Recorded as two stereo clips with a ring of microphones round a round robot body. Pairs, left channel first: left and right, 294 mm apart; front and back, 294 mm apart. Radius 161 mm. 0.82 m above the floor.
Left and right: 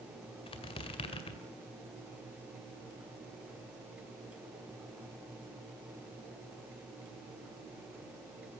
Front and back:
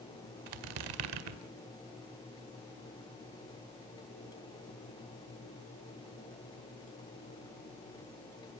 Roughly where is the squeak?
Behind.